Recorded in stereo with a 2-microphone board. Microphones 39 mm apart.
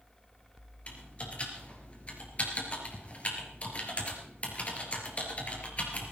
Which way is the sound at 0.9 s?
35° left (ahead or behind).